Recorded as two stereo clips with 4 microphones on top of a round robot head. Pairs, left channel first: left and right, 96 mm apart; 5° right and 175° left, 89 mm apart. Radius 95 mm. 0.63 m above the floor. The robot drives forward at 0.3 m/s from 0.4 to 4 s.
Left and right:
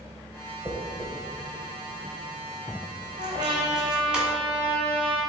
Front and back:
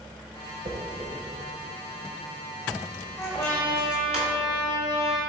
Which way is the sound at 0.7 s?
160° right.